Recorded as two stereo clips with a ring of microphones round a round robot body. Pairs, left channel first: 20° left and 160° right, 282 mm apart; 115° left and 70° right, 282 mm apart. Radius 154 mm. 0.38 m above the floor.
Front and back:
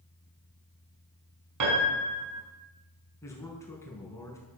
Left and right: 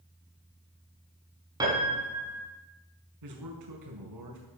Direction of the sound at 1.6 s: 145° right.